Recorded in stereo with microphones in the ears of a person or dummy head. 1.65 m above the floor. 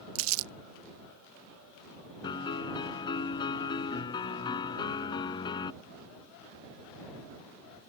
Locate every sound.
0.1 s crumpling: 75° right (ahead or behind)
2.2 s a piano: 25° left (ahead or behind)